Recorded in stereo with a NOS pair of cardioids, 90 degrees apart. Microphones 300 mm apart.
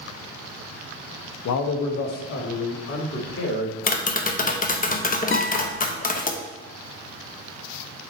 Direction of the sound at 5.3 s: 40° left.